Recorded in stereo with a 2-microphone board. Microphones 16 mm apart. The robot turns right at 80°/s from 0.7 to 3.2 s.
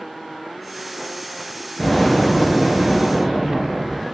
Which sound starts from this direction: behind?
An explosion, at 1.8 s.